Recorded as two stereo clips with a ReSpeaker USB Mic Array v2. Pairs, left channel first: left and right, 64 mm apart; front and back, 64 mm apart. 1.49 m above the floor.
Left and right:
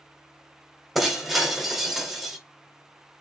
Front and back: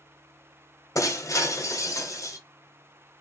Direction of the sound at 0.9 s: Straight ahead.